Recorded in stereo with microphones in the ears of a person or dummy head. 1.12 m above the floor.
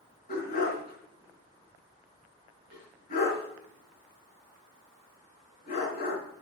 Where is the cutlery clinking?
No cutlery clinking in this recording.